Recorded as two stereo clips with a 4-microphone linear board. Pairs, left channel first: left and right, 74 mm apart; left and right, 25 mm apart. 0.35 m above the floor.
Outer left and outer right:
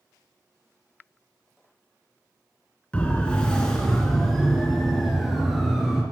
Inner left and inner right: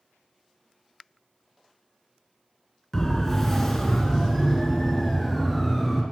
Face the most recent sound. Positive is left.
turn(degrees=-5)  # may be behind; listen again after turning